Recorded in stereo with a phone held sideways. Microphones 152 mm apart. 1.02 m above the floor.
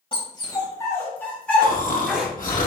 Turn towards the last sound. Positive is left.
turn(degrees=60)  # may be behind; listen again after turning